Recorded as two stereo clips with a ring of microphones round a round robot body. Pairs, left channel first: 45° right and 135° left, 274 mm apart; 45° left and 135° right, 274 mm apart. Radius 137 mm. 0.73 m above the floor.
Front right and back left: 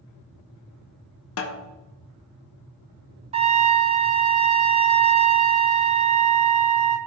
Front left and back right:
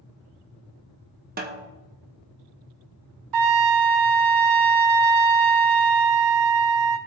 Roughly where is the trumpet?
Behind right.